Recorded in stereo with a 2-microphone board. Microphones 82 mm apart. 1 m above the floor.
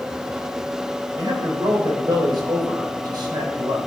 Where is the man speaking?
60° right (ahead or behind), 3.5 m.